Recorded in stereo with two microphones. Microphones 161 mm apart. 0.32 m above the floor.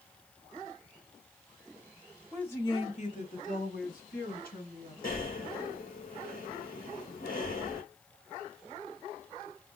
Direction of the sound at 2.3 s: Centre (ahead or behind).